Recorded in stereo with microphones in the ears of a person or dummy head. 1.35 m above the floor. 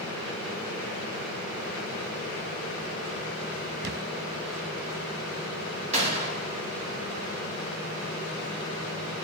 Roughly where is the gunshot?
Right.